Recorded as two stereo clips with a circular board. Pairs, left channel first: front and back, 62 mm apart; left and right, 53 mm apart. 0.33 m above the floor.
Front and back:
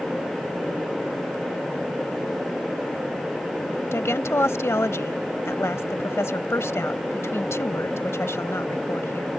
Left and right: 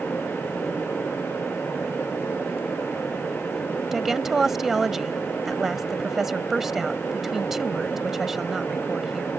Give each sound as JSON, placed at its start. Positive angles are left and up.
{"t": 3.9, "sound": "a woman speaking", "azimuth_deg": -10}